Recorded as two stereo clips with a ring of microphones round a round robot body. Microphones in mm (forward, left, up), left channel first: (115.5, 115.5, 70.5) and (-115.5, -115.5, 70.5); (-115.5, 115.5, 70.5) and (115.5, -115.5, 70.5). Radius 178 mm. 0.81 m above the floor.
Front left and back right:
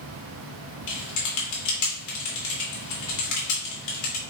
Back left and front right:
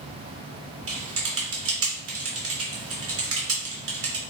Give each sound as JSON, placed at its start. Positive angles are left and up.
{"t": 0.9, "sound": "typing on a keyboard", "azimuth_deg": 5, "distance_m": 3.0}